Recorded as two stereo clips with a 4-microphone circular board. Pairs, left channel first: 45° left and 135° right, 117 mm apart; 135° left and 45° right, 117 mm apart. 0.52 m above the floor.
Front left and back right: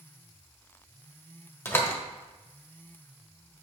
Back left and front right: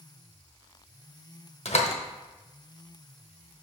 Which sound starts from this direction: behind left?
A door slam, at 1.6 s.